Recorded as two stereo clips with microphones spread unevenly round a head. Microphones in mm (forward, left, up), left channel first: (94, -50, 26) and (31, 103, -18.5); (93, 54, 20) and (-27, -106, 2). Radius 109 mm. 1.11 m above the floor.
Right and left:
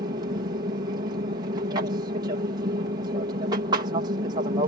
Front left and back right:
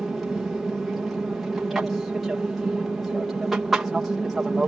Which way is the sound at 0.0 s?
150° left.